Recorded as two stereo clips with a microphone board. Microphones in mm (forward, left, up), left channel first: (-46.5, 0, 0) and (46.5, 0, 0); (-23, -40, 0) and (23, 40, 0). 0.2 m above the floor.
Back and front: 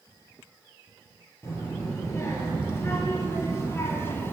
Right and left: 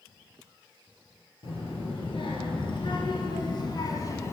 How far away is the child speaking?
About 3 m.